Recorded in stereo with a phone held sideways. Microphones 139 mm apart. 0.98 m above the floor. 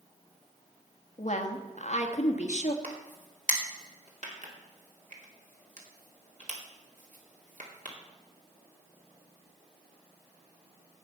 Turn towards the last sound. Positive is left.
turn(degrees=-65)  # may be behind; listen again after turning